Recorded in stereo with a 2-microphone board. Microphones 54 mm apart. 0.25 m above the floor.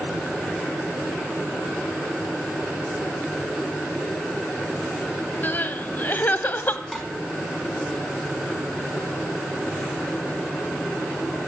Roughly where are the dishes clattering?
Centre.